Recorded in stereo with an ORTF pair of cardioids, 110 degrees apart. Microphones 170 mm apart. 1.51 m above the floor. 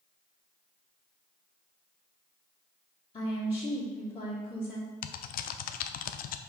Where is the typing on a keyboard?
60° left, 0.5 m.